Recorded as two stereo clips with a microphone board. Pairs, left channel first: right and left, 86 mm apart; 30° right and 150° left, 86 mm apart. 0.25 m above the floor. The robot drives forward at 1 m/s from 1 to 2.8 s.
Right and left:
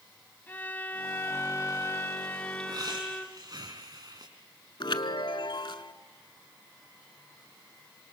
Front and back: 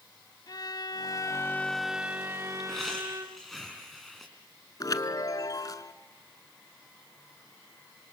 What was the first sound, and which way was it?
A violin, 30° right.